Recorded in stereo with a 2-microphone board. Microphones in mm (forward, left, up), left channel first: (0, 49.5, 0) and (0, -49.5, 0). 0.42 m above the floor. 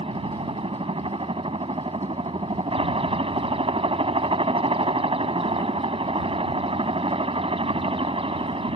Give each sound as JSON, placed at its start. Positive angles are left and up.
{"t": 0.0, "sound": "a helicopter", "side_deg": -65}